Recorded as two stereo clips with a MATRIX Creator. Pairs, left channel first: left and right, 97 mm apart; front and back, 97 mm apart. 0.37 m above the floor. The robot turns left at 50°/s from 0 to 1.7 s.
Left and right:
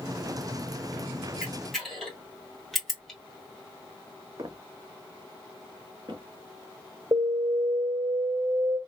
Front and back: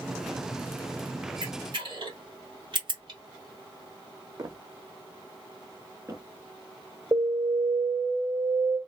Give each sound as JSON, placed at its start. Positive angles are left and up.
{"t": 1.4, "sound": "a camera shutter", "azimuth_deg": -170, "distance_m": 1.8}
{"t": 4.4, "sound": "footsteps", "azimuth_deg": -135, "distance_m": 1.0}
{"t": 7.1, "sound": "an alarm", "azimuth_deg": -125, "distance_m": 3.0}